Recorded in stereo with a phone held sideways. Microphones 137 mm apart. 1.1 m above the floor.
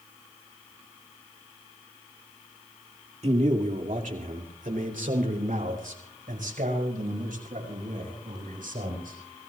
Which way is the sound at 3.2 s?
50° right (ahead or behind).